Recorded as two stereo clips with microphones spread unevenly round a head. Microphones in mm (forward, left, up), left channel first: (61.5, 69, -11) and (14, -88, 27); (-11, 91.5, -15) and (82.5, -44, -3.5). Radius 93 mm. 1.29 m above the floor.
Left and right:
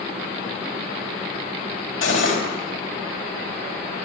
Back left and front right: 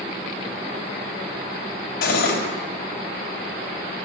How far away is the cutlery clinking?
About 4 m.